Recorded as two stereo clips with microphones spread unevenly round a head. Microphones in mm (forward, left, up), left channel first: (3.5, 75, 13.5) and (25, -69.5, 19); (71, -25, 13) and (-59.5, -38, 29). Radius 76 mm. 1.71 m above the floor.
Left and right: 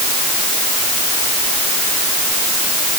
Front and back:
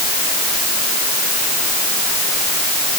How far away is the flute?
No flute in this recording.